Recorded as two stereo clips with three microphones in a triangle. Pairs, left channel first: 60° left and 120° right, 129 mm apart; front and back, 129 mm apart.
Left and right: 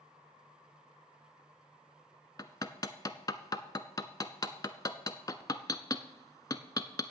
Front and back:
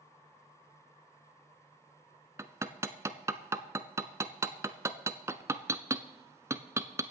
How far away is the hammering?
About 0.6 m.